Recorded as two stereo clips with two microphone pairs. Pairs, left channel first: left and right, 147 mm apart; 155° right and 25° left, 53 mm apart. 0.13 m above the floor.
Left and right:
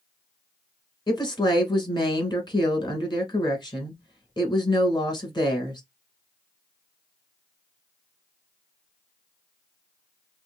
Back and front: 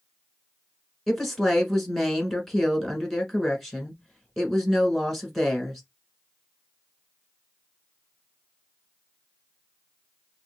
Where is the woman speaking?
120° left, 1.3 m.